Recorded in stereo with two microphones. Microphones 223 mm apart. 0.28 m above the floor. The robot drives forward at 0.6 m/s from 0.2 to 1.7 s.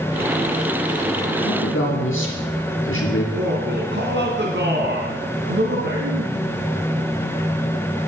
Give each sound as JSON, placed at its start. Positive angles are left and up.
{"t": 1.4, "sound": "a man speaking", "side_deg": 65, "distance_m": 5.0}
{"t": 3.3, "sound": "a man speaking", "side_deg": -55, "distance_m": 2.5}